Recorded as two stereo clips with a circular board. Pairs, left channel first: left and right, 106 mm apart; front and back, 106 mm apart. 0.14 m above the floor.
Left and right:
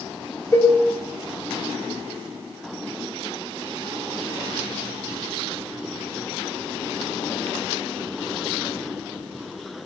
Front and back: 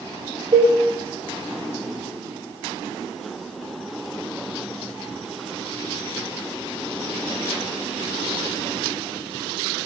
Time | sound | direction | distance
0.5 | a cowbell | 150° left | 6.5 m